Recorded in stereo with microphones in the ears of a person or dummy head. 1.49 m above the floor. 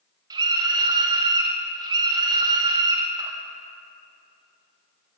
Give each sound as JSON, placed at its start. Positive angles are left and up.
{"t": 0.3, "sound": "a scream", "side_deg": -25, "distance_m": 1.3}